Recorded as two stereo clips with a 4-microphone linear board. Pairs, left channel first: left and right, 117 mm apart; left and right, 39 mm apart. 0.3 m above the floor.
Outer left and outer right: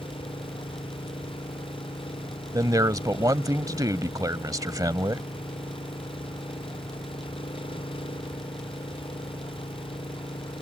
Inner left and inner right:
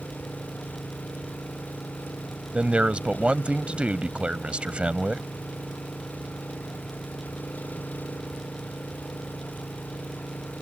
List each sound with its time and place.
0.0 s an engine running: 50° left (ahead or behind)
2.5 s a man speaking: 30° right (ahead or behind)